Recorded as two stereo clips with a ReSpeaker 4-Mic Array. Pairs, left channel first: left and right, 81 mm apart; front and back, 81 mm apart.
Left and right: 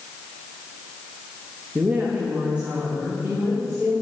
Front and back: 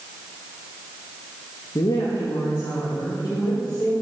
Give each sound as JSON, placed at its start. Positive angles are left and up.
{"t": 1.8, "sound": "a woman speaking", "azimuth_deg": -20, "distance_m": 1.0}